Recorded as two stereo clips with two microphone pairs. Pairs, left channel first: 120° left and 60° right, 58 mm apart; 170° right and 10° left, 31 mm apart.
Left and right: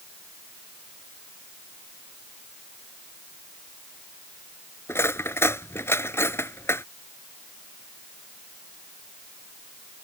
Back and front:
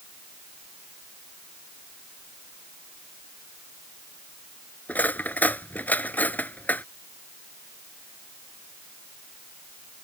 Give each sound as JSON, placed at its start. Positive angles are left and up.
{"t": 4.9, "sound": "cutlery clinking", "azimuth_deg": 165}